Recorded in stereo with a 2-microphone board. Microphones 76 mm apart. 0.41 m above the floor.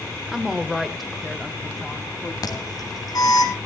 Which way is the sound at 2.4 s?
55° left (ahead or behind).